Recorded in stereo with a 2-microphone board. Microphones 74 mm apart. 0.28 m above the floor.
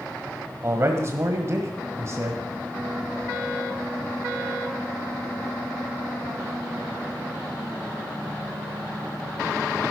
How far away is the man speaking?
About 1.3 m.